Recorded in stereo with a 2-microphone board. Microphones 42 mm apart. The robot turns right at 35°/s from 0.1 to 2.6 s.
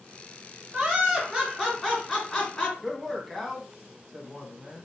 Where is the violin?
No violin in this recording.